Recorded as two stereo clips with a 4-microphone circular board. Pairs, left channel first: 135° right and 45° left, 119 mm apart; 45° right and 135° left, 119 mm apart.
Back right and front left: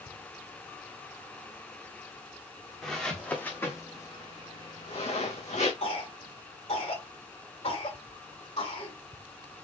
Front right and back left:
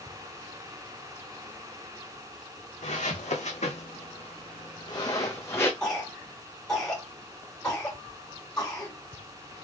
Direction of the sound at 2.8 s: 45° right.